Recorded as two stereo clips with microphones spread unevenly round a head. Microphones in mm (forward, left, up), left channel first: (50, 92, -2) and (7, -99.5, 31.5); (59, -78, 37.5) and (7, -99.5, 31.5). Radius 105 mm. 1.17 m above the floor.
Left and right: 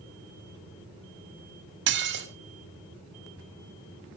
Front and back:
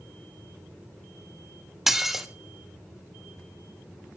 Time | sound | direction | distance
1.9 | dishes clattering | 70° right | 2 m